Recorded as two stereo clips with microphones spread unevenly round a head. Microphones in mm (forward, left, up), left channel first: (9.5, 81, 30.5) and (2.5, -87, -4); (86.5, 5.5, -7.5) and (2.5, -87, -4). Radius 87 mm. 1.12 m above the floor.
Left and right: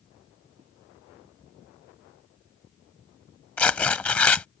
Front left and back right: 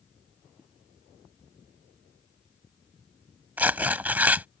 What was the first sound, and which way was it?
A zipper, 40° right.